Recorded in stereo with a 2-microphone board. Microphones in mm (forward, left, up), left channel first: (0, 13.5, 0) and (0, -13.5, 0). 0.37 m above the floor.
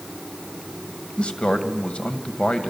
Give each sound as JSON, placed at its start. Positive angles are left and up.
{"t": 1.2, "sound": "a man speaking", "side_deg": 40, "distance_m": 2.0}